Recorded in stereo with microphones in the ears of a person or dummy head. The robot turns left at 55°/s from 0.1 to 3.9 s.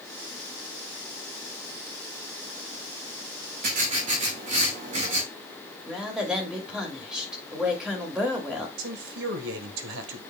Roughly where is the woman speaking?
Centre.